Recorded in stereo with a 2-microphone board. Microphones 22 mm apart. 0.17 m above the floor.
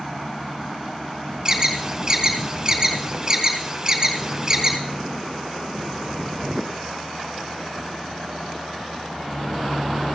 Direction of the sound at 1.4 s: 25° right (ahead or behind).